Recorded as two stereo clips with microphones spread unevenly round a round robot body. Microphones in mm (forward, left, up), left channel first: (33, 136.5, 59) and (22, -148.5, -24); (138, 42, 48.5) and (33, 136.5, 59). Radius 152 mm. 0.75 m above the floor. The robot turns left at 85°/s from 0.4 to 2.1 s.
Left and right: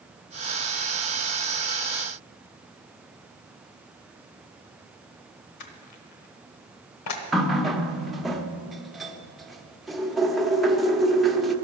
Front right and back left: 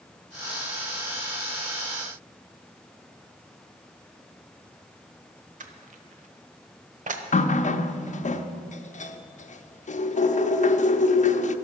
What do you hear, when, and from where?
5.6 s crushing: 110° left, 1.1 m
7.3 s a running tap: 5° right, 0.8 m